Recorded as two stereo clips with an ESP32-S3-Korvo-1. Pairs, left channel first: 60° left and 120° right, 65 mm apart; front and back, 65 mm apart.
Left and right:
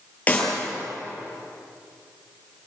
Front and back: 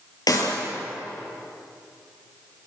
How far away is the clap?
About 8 m.